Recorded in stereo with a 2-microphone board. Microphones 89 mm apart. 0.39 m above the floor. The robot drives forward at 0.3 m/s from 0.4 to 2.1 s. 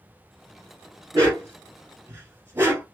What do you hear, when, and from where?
1.1 s a dog barking: 35° right (ahead or behind), 2 m; by 2.8 s 30° right (ahead or behind), 2.5 m